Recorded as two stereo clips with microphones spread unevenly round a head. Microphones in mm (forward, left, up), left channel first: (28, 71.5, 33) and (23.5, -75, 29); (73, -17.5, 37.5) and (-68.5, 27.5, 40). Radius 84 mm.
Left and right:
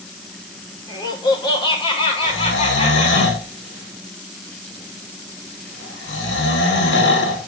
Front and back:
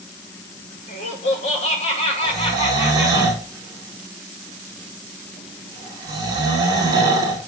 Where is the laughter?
25° left, 7 m; by 3.2 s 45° left, 7 m.